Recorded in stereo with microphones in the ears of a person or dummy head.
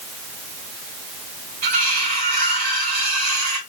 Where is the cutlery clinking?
45° right (ahead or behind), 1.8 m.